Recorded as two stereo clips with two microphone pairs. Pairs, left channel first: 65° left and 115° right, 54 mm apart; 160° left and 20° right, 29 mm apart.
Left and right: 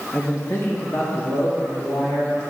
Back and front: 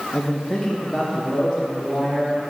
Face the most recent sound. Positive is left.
turn(degrees=55)